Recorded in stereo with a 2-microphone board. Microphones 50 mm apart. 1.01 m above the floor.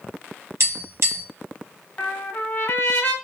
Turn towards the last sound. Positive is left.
turn(degrees=35)  # may be behind; listen again after turning